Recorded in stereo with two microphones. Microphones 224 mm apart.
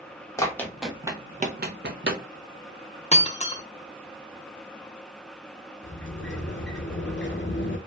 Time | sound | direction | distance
0.4 | running footsteps | 15° left (ahead or behind) | 0.7 m
3.1 | breaking glass | 30° left (ahead or behind) | 0.5 m
5.8 | a sliding door | 55° left (ahead or behind) | 0.5 m